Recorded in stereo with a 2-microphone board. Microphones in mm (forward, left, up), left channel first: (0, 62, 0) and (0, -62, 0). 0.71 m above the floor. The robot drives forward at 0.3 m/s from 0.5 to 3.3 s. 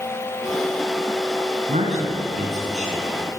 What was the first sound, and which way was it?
A man speaking, 70° right (ahead or behind).